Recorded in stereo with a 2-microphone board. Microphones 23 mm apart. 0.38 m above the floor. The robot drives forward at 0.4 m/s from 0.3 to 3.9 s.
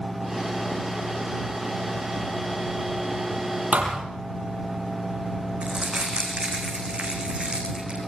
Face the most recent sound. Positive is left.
turn(degrees=-50)  # may be behind; listen again after turning